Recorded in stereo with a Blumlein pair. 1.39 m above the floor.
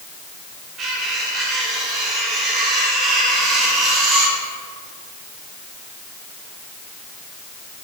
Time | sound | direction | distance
0.8 | cutlery clinking | 30° right | 3 m